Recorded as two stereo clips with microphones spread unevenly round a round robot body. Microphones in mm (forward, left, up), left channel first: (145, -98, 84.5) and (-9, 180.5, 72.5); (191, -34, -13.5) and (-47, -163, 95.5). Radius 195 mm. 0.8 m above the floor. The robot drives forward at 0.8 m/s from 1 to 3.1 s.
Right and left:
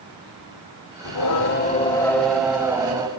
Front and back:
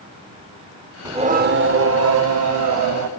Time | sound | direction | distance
1.1 | singing | 90° right | 0.7 m